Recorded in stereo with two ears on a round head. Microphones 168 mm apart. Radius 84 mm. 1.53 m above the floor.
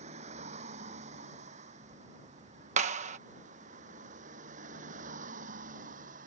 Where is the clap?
40° right (ahead or behind).